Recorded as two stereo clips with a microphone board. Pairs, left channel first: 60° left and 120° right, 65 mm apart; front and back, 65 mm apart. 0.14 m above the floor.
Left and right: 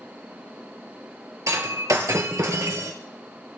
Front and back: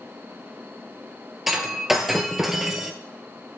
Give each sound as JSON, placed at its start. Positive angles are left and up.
{"t": 1.5, "sound": "breaking glass", "azimuth_deg": -95, "distance_m": 2.0}